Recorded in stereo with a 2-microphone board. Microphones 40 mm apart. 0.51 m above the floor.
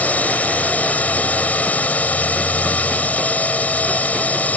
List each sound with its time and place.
0.0 s a drone: 40° left (ahead or behind)